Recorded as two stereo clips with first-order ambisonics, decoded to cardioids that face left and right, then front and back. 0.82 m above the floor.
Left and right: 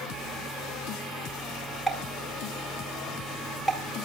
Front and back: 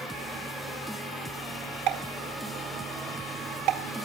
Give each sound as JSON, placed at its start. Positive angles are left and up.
{"t": 1.9, "sound": "a pop", "azimuth_deg": 180, "distance_m": 2.0}